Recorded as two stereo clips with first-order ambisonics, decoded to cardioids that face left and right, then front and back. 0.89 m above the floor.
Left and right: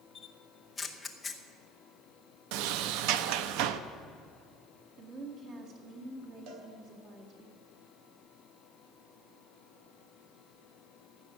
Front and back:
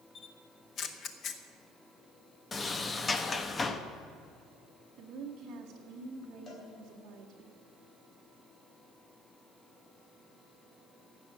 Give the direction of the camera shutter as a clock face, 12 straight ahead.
11 o'clock.